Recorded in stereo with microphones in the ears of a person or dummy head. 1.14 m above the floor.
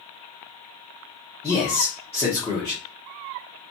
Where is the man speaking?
5° left (ahead or behind), 1.0 m.